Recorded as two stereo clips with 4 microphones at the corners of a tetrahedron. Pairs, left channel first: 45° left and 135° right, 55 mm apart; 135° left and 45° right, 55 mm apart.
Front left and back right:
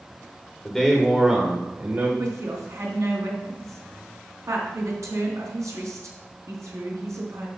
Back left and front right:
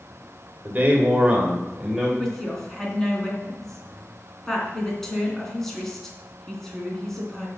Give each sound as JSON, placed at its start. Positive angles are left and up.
{"t": 0.7, "sound": "a man speaking", "azimuth_deg": -30, "distance_m": 1.7}
{"t": 2.2, "sound": "a woman speaking", "azimuth_deg": -145, "distance_m": 3.5}